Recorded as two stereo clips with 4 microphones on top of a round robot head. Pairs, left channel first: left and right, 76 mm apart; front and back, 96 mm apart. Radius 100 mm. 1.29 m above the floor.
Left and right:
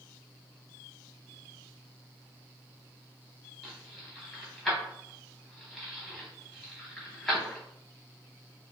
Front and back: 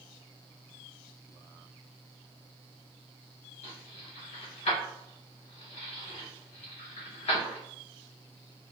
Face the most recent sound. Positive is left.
turn(degrees=5)